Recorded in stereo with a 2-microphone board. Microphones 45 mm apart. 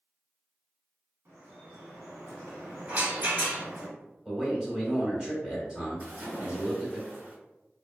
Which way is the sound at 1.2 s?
65° right (ahead or behind).